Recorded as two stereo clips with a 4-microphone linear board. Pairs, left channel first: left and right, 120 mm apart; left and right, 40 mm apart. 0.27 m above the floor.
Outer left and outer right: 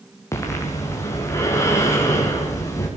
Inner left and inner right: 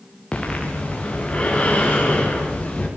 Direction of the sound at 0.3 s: 25° left (ahead or behind).